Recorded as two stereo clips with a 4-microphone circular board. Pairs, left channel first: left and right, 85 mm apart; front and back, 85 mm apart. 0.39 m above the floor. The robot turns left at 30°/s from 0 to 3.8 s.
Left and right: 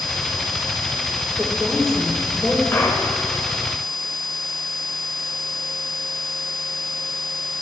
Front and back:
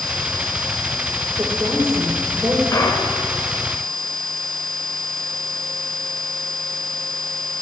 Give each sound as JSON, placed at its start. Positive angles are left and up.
{"t": 1.4, "sound": "a woman speaking", "azimuth_deg": -175, "distance_m": 0.9}
{"t": 2.7, "sound": "a clunk", "azimuth_deg": 40, "distance_m": 0.6}